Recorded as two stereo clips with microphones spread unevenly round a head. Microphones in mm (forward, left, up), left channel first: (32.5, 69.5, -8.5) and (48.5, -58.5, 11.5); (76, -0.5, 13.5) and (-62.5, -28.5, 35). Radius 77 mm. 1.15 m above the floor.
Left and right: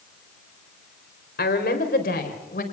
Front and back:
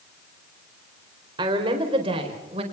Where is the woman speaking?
130° left, 4 m; by 2.6 s 135° left, 4.5 m.